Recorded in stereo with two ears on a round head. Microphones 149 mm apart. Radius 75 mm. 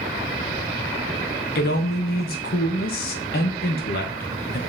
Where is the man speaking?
65° left (ahead or behind), 1.1 m.